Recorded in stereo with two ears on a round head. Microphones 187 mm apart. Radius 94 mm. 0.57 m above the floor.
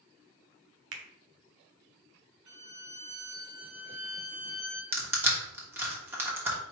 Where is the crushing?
10° right (ahead or behind), 1.1 m.